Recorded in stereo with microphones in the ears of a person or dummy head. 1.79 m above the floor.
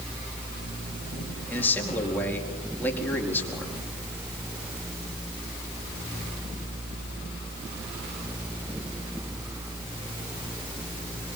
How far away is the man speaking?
About 4.5 m.